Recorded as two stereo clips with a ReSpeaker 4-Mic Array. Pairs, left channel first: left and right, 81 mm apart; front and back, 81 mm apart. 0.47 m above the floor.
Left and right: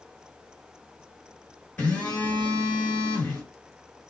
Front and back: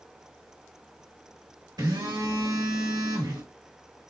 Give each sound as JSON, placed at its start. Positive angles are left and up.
{"t": 1.8, "sound": "a phone buzzing", "azimuth_deg": 160, "distance_m": 1.6}